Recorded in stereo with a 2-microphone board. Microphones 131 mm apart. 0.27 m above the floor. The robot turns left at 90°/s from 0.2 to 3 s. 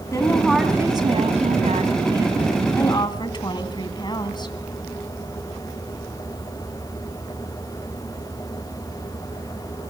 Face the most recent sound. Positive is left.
turn(degrees=140)